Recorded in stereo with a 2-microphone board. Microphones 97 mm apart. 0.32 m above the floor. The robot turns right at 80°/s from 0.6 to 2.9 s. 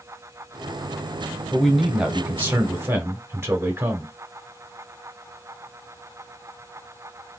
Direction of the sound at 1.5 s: 10° left (ahead or behind).